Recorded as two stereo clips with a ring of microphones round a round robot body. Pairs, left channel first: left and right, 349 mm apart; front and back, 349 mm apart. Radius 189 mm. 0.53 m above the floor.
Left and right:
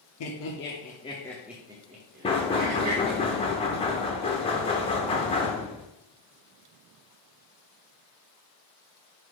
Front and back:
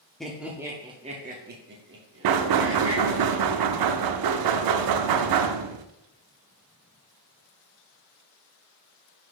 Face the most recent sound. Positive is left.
turn(degrees=165)